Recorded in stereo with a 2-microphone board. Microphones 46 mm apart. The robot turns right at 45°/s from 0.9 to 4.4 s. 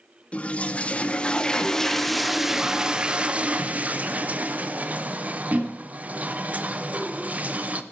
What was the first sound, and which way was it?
A toilet flushing, 120° left.